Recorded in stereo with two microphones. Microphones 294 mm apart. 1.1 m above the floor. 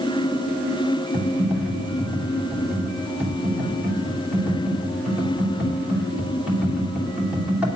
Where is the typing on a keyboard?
5° right (ahead or behind), 3 m.